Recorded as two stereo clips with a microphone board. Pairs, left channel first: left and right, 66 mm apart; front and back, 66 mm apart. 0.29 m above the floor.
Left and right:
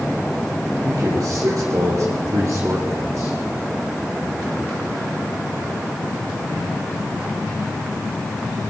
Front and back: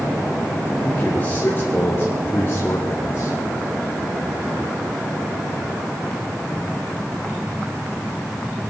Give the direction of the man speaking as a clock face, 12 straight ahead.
2 o'clock.